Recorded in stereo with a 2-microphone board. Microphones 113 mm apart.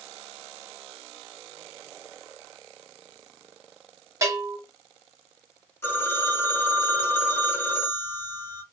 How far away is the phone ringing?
About 0.9 m.